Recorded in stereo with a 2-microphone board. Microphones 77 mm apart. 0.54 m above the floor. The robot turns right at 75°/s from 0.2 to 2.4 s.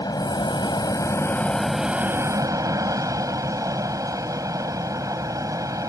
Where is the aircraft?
65° left; by 5.9 s 130° right.